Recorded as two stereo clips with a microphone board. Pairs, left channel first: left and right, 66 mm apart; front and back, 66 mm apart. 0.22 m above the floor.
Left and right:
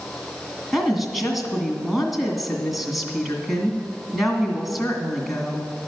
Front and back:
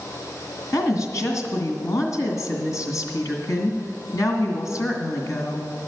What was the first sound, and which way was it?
A woman speaking, 5° right.